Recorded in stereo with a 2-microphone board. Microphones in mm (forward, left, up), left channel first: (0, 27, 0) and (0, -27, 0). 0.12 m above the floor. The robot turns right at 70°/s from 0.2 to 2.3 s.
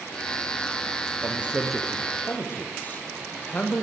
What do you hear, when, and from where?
1.2 s a man speaking: 35° right, 4.5 m; by 3.8 s 40° left, 4.5 m